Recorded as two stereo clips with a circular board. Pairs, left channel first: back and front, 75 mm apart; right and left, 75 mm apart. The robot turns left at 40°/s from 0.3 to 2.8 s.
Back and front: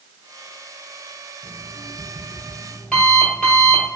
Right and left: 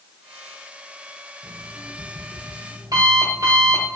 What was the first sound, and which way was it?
An alarm clock, 155° left.